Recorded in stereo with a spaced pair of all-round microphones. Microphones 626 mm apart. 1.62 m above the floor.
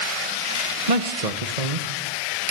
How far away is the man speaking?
About 1.8 m.